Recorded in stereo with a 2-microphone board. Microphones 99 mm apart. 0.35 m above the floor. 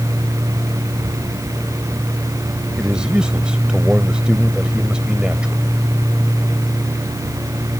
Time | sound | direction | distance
2.8 | a man speaking | 10° right (ahead or behind) | ?